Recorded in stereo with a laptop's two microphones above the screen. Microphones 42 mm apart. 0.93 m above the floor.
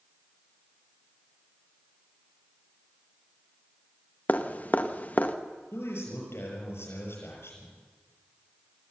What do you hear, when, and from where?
4.3 s dripping: 40° left (ahead or behind), 1.4 m
5.7 s a man speaking: 80° left, 6.5 m